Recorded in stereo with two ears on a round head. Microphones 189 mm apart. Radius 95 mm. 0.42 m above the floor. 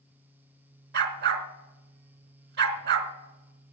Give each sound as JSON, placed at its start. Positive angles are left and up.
{"t": 0.9, "sound": "a dog barking", "side_deg": -50, "distance_m": 1.3}